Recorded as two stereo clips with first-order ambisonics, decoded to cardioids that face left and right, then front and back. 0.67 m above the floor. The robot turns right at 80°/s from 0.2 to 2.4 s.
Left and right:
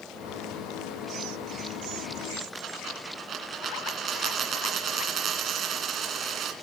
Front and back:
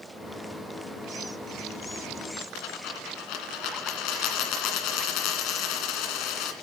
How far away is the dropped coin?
About 2.0 m.